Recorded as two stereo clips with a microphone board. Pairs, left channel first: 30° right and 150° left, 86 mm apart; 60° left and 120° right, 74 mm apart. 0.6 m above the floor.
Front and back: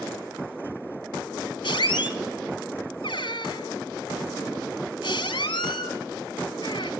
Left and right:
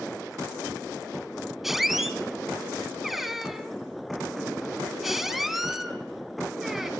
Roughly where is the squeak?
Ahead right.